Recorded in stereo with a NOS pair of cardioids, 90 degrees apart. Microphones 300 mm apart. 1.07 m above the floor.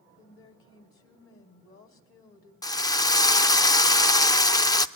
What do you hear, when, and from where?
0.2 s a woman speaking: 45° left, 3 m
2.6 s a drill: 15° left, 0.6 m